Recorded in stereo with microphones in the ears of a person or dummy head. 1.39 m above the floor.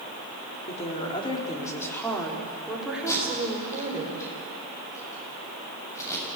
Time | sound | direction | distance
0.7 | a woman speaking | 40° left (ahead or behind) | 4 m
3.1 | tape being pulled | 20° left (ahead or behind) | 8 m